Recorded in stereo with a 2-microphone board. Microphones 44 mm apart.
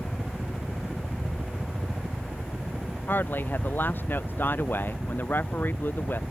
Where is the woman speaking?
45° left (ahead or behind).